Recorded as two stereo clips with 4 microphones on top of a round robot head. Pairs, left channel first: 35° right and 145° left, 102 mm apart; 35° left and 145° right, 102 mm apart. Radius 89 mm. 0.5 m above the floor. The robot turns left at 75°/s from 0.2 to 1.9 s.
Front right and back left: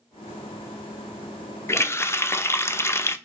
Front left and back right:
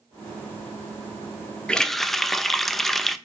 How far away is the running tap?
About 0.5 m.